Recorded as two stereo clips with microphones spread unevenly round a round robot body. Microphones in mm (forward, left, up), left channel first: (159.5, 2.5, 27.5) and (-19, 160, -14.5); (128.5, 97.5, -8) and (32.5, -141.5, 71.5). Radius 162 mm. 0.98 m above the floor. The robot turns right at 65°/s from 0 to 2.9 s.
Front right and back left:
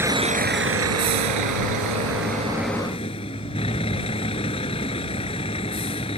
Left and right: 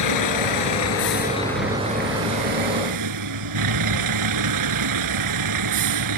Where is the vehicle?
55° left; by 6.2 s 115° right.